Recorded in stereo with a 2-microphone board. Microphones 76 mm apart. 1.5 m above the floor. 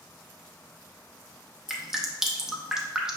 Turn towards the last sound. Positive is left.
turn(degrees=-5)  # may be behind; listen again after turning